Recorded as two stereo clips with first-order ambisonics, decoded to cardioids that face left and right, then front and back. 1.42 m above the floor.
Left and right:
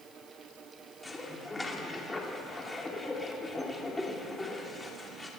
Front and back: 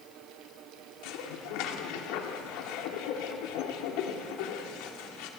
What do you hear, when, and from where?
1.0 s dishes clattering: 10° left, 2.5 m